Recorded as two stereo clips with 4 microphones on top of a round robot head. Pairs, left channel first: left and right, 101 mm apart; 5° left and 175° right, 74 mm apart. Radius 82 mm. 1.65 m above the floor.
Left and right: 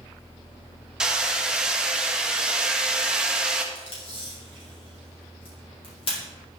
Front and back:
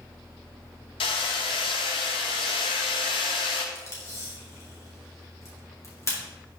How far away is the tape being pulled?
About 3.5 m.